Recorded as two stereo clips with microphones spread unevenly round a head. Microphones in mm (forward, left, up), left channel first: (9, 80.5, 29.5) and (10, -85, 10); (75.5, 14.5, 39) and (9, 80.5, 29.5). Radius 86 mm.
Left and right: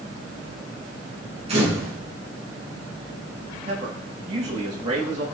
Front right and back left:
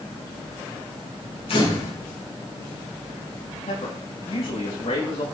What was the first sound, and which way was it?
A camera shutter, 35° right.